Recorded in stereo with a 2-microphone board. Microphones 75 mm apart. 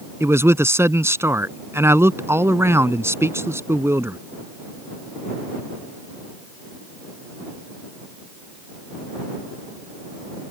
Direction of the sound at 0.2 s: 35° right (ahead or behind).